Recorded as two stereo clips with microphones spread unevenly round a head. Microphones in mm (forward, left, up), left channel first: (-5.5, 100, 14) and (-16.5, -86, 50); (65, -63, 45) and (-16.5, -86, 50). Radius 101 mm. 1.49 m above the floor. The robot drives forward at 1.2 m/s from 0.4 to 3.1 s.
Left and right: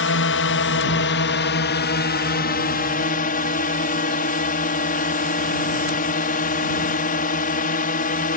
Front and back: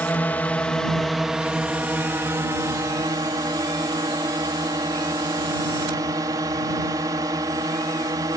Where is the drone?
95° left; by 8.4 s 130° left.